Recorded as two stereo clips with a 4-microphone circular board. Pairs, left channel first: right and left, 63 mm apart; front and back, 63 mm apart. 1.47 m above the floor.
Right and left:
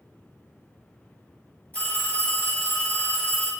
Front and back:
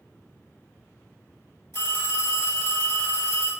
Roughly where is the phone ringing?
Ahead right.